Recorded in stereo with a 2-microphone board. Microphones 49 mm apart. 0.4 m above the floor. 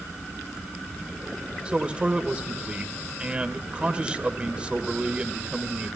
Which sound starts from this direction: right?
A man speaking, at 1.6 s.